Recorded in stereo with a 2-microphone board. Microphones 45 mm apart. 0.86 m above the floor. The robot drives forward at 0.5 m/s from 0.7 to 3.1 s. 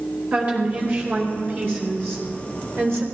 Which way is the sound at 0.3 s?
40° right (ahead or behind).